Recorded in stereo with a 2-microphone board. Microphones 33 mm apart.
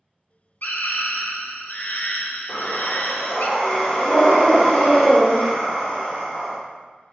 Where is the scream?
60° left (ahead or behind), 0.5 m.